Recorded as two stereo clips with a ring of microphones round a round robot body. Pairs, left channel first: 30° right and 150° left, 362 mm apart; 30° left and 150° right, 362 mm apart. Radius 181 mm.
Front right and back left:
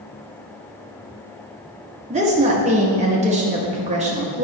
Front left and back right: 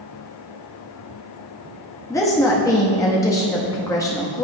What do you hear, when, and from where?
2.1 s a woman speaking: 100° left, 0.7 m